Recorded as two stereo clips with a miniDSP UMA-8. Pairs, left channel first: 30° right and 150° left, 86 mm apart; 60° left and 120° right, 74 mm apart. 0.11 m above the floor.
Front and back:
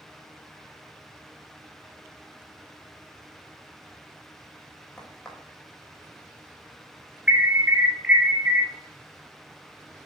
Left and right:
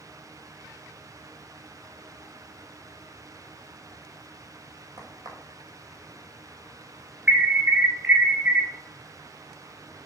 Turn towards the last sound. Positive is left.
turn(degrees=-155)